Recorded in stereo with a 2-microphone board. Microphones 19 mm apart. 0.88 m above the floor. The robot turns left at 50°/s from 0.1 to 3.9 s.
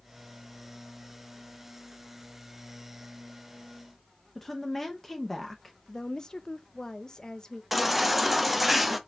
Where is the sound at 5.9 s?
35° left (ahead or behind), 0.5 m.